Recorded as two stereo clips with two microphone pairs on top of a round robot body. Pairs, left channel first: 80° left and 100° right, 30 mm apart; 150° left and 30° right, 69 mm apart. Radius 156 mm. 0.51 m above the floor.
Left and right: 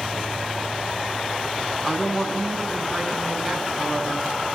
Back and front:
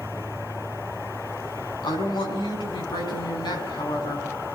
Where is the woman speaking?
160° left, 6.5 m.